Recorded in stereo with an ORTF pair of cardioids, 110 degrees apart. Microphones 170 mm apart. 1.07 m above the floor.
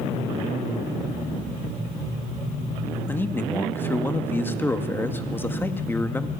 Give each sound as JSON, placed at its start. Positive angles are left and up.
{"t": 3.1, "sound": "a man speaking", "azimuth_deg": 15, "distance_m": 2.0}